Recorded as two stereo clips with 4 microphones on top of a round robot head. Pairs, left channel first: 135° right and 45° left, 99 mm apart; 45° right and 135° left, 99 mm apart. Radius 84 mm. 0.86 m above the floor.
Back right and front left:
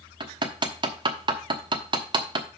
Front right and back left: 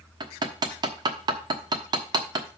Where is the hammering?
85° left, 1.1 m.